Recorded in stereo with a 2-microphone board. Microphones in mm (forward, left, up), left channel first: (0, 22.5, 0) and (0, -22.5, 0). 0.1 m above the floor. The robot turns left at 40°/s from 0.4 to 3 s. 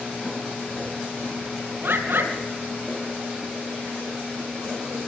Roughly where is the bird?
Right.